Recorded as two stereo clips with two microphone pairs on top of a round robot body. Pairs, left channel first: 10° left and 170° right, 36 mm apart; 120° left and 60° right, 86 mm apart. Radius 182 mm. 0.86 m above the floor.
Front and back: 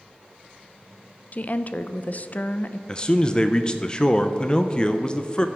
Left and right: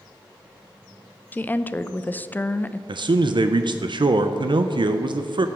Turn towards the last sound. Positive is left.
turn(degrees=-65)